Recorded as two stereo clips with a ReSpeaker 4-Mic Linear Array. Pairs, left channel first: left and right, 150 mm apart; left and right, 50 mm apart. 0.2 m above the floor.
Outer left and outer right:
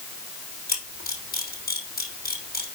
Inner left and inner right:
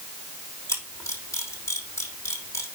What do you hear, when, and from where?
0.7 s a camera shutter: 85° left, 4.5 m